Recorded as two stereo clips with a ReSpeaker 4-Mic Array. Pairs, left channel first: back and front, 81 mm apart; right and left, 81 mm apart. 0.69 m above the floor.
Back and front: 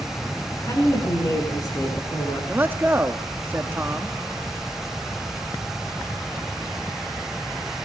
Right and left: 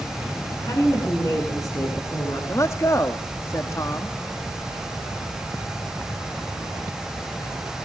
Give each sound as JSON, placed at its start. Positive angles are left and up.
{"t": 0.6, "sound": "a woman speaking", "azimuth_deg": -130, "distance_m": 9.5}
{"t": 2.5, "sound": "a man speaking", "azimuth_deg": -55, "distance_m": 1.2}